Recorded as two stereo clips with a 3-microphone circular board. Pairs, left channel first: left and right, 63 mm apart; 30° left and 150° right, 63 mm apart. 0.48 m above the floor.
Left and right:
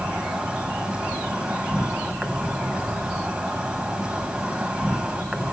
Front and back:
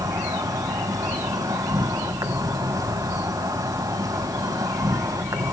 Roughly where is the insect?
Behind.